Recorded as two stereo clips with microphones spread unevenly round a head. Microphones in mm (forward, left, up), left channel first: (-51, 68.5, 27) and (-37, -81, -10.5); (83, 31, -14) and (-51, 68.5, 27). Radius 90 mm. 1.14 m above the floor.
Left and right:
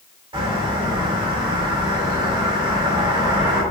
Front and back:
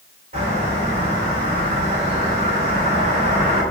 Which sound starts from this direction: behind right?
A bird, at 0.3 s.